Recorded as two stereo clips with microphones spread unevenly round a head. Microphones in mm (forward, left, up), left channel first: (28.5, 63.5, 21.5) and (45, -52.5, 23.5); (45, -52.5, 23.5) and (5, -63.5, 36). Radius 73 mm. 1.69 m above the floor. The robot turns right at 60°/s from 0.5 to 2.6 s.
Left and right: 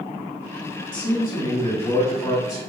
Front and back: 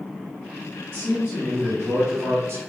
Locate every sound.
0.9 s a man speaking: 95° left, 1.2 m; by 2.6 s 160° right, 1.2 m